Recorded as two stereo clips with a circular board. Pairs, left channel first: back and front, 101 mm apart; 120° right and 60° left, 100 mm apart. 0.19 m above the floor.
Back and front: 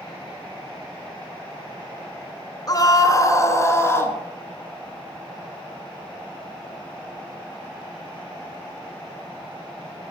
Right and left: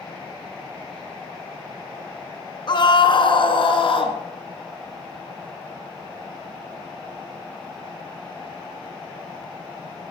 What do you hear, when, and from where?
2.7 s a scream: 140° right, 2 m; by 4.2 s 115° right, 2.5 m